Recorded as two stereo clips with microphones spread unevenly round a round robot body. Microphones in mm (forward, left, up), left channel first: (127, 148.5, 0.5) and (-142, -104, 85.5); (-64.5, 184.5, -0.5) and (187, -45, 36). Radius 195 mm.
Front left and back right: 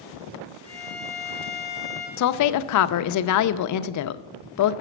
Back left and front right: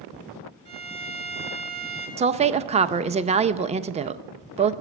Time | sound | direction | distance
0.7 | a violin | 80° right | 3.5 m
2.2 | a woman speaking | 30° left | 0.5 m